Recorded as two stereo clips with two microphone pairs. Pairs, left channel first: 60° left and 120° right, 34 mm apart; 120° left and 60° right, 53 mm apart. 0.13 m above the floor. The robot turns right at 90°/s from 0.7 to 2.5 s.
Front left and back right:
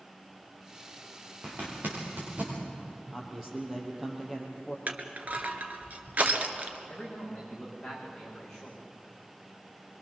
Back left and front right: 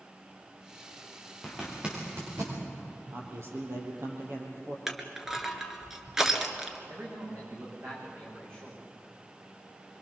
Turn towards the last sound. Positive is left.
turn(degrees=-20)